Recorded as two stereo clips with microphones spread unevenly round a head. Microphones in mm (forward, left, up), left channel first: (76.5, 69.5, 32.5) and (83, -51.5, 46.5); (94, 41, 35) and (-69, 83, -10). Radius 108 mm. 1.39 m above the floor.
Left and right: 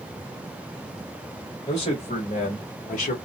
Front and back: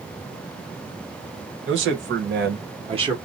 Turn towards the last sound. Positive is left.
turn(degrees=95)